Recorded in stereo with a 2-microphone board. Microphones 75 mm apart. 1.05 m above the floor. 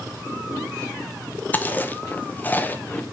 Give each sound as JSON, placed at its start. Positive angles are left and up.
{"t": 1.5, "sound": "chewing", "side_deg": 25, "distance_m": 0.5}